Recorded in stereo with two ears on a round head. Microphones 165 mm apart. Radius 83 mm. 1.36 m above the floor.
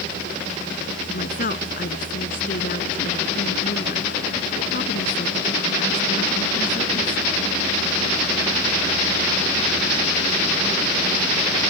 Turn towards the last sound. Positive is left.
turn(degrees=50)  # may be behind; listen again after turning